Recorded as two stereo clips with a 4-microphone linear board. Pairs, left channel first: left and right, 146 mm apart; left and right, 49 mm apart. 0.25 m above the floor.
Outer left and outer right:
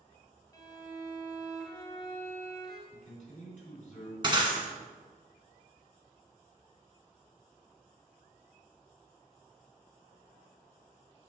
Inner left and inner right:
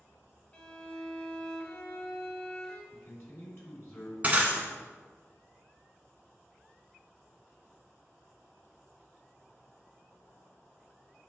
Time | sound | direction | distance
0.5 | a violin | 25° left (ahead or behind) | 1.6 m
2.9 | a man speaking | 60° left (ahead or behind) | 3 m
4.2 | breaking glass | 30° right (ahead or behind) | 1.5 m